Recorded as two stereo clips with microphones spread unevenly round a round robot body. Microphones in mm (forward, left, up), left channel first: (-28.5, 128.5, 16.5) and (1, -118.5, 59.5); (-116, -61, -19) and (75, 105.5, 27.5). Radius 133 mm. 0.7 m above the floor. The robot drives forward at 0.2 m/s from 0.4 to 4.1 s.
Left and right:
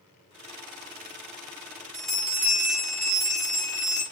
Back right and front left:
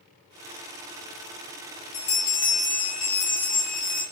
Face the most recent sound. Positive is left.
turn(degrees=-175)